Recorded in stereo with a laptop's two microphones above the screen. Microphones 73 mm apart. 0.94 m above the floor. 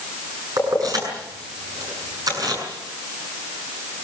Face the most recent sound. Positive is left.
turn(degrees=-55)  # may be behind; listen again after turning